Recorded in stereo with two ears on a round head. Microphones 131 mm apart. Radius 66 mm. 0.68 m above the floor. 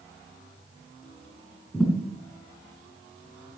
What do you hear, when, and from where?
1.7 s a thud: 5° left (ahead or behind), 3 m